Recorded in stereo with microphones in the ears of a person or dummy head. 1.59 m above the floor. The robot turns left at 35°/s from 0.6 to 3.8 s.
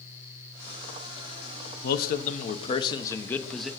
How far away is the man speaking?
About 0.8 m.